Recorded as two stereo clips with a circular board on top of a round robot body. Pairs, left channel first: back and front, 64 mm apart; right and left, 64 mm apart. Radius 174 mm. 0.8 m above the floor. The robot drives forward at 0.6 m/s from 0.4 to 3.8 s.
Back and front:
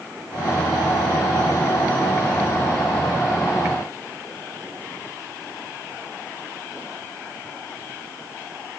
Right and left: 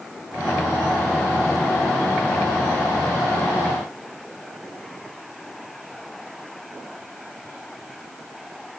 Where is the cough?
No cough in this recording.